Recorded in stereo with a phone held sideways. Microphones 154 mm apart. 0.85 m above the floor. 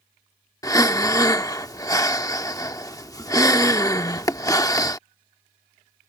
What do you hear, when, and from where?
0.6 s breathing: 20° left (ahead or behind)